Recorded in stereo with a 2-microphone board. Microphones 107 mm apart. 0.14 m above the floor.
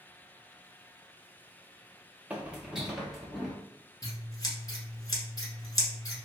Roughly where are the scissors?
Left.